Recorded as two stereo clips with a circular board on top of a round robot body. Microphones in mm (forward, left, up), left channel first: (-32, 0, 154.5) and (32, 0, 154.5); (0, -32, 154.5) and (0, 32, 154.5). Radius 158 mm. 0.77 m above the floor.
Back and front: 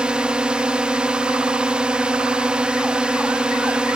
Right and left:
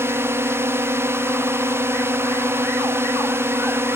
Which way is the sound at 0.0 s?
65° left.